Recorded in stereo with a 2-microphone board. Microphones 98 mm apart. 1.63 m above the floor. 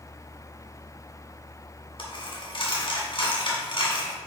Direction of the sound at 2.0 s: 55° left (ahead or behind).